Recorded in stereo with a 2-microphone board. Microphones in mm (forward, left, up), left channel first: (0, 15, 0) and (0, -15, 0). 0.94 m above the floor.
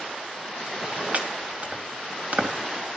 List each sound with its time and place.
1.1 s chopping: 50° right (ahead or behind), 2.5 m